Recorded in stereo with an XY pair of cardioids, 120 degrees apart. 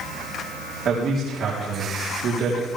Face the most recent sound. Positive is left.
turn(degrees=-60)